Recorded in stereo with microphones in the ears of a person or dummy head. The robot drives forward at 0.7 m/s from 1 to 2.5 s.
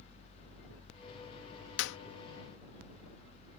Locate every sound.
1.8 s a clap: 75° left (ahead or behind)